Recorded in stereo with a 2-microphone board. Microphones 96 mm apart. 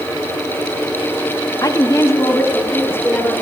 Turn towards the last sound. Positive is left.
turn(degrees=25)  # may be behind; listen again after turning